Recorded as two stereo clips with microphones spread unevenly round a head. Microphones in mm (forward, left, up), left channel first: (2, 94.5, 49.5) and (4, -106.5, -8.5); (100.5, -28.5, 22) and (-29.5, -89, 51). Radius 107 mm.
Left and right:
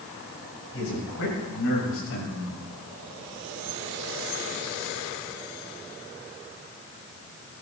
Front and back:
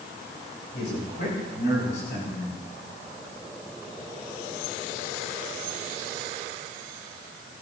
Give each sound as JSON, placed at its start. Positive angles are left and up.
{"t": 0.7, "sound": "a man speaking", "azimuth_deg": 65, "distance_m": 7.0}